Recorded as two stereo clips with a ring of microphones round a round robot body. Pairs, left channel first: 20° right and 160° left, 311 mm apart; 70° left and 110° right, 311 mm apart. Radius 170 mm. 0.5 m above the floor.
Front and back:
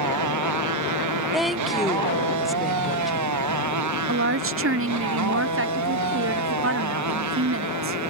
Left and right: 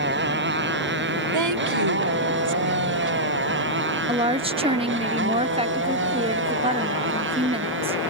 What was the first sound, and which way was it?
A motorcycle, 170° right.